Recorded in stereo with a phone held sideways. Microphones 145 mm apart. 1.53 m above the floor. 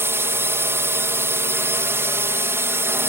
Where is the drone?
15° right (ahead or behind).